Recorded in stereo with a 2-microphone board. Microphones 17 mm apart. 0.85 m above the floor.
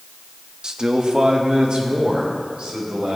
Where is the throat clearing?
I don't hear throat clearing.